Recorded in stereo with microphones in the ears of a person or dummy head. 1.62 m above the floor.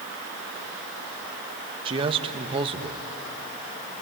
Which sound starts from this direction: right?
A man speaking, at 1.9 s.